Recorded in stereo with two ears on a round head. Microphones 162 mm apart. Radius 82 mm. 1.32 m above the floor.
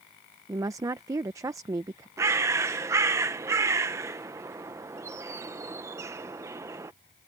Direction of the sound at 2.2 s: 15° right (ahead or behind).